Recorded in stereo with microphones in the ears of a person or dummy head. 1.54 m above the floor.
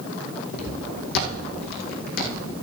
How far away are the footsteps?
About 2.5 m.